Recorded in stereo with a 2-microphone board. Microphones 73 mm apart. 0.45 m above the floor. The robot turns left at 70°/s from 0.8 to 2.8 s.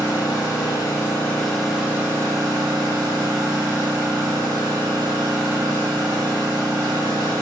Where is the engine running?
60° left, 1.2 m; by 7.4 s 80° right, 1.2 m.